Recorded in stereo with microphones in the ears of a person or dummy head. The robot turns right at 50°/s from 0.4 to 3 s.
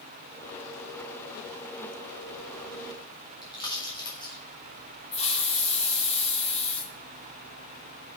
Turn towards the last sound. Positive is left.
turn(degrees=35)  # may be behind; listen again after turning